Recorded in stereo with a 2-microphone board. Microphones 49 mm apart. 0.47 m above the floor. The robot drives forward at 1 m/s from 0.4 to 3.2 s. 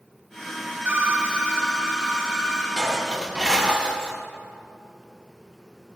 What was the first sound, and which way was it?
A phone ringing, 35° right (ahead or behind).